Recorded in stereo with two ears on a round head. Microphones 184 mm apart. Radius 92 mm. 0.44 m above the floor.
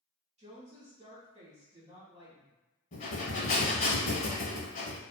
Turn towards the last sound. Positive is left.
turn(degrees=40)  # may be behind; listen again after turning